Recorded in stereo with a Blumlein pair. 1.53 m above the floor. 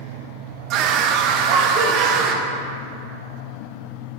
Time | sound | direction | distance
0.7 | a scream | 40° right | 1.2 m